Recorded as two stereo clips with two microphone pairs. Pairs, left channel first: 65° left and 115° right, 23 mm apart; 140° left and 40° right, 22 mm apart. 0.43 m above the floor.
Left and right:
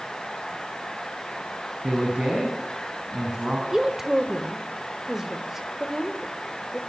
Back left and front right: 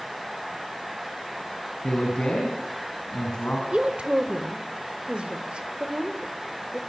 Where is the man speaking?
170° right, 4.5 m.